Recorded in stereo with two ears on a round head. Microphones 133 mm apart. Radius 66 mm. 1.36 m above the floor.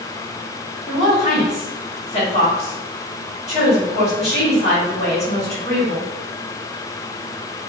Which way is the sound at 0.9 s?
45° left (ahead or behind).